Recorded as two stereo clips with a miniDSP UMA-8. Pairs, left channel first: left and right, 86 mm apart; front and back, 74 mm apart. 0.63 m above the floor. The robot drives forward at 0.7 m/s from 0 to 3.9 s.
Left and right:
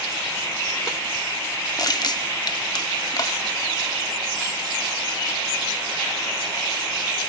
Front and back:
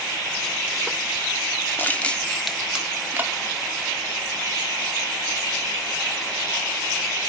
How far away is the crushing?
About 1.2 m.